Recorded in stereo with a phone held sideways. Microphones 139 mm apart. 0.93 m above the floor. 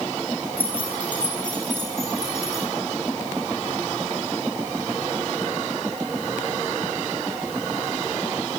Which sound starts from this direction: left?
Keys jangling, at 0.6 s.